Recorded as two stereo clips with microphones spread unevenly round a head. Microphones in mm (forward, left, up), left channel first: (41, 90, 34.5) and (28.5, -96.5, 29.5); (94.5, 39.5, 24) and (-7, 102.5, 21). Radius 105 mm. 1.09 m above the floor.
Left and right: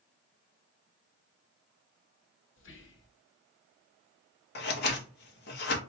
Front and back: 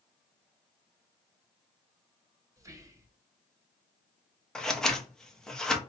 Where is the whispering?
85° left, 0.9 m.